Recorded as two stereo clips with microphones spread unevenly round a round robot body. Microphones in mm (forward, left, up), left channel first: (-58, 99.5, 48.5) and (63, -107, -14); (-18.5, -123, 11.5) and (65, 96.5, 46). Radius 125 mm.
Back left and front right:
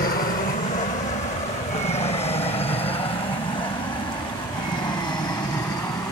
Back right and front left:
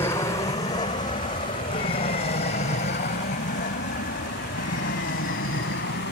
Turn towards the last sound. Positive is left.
turn(degrees=-160)